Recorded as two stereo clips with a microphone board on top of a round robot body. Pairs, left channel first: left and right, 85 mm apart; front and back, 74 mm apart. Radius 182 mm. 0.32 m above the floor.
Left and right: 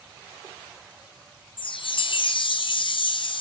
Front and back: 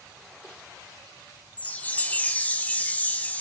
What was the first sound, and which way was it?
A chime, 70° left.